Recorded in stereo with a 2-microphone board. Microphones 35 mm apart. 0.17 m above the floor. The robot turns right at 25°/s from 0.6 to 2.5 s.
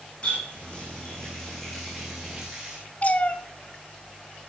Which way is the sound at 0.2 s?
30° left (ahead or behind).